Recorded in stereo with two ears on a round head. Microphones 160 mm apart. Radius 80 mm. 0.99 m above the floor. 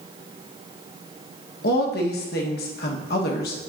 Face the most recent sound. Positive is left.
turn(degrees=60)  # may be behind; listen again after turning